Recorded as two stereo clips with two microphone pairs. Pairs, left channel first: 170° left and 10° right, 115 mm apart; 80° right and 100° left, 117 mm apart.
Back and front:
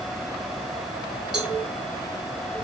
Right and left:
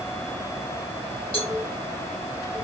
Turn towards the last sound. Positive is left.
turn(degrees=-95)